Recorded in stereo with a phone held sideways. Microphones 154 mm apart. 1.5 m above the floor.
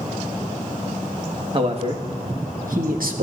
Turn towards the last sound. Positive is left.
turn(degrees=-75)  # may be behind; listen again after turning